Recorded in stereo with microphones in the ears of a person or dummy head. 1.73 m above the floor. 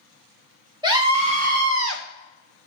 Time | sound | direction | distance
0.8 | a scream | 20° right (ahead or behind) | 1.4 m